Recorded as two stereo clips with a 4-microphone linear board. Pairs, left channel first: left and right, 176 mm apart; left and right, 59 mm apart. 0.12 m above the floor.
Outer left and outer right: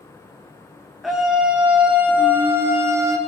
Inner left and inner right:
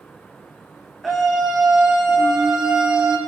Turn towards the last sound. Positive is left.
turn(degrees=-20)  # may be behind; listen again after turning